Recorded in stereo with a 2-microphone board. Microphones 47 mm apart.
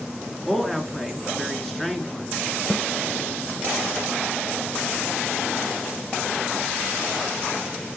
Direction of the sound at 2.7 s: 15° left (ahead or behind).